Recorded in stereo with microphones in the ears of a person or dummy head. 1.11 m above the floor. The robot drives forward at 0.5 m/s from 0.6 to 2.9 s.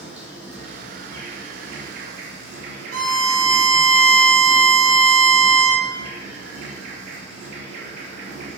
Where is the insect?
35° right (ahead or behind), 1.2 m; by 8.6 s 65° right (ahead or behind), 0.7 m.